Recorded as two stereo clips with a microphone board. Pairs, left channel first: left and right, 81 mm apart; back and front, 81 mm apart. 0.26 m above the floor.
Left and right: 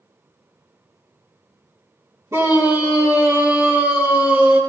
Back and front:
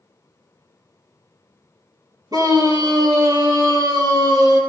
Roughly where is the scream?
Ahead right.